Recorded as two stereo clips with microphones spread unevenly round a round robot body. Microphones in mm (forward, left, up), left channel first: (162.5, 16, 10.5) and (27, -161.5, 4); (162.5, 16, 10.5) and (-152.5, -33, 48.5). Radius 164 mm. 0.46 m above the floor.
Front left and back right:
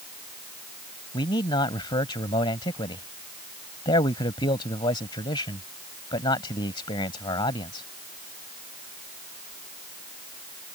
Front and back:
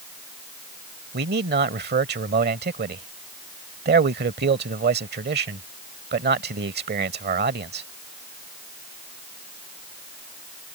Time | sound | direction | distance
1.1 | a man speaking | 130° left | ?